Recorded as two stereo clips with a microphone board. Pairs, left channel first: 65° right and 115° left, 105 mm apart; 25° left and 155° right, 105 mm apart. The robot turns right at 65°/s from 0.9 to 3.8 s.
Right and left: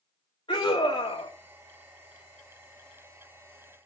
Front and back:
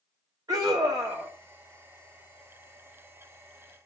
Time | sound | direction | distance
0.5 | a scream | 105° right | 2 m